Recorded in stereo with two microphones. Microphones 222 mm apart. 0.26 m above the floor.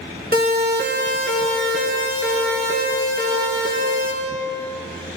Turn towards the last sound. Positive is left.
turn(degrees=-65)  # may be behind; listen again after turning